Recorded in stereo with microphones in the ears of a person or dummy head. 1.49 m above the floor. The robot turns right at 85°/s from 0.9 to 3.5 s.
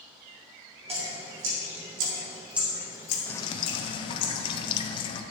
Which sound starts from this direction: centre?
Dripping, at 3.3 s.